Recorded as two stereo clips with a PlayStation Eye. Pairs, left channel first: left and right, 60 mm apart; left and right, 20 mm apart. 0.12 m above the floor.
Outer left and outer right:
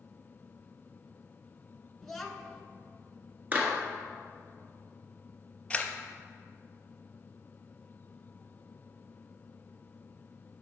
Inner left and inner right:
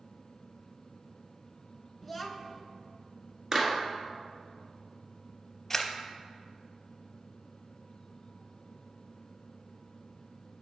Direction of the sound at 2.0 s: 5° left (ahead or behind).